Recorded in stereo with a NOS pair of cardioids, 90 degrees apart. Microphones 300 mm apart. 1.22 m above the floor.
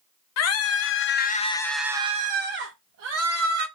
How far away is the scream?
About 0.8 m.